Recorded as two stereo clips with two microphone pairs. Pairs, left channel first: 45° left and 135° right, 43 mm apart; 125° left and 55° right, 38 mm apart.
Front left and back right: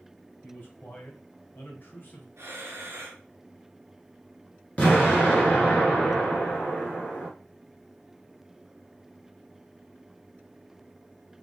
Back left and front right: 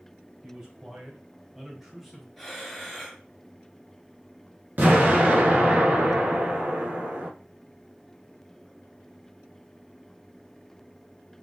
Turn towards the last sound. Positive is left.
turn(degrees=-15)